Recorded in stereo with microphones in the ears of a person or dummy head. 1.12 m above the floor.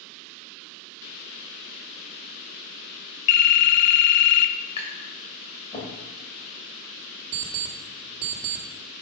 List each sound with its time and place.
3.3 s a phone ringing: 85° left, 0.8 m
4.8 s tapping: 30° left (ahead or behind), 2.5 m
7.3 s an alarm clock: 50° right (ahead or behind), 1.4 m